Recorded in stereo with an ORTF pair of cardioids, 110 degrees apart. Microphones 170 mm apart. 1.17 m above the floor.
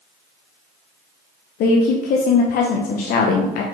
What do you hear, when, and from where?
1.6 s a woman speaking: 65° left, 0.6 m